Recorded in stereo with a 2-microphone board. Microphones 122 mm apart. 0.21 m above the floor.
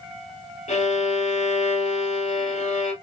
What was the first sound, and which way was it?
A violin, 80° left.